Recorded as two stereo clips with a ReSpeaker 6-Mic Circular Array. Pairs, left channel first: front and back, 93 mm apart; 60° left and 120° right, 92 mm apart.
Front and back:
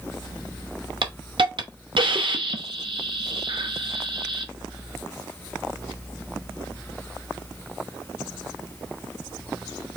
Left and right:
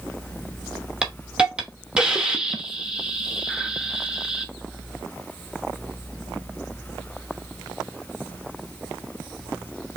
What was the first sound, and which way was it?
A hiss, 160° left.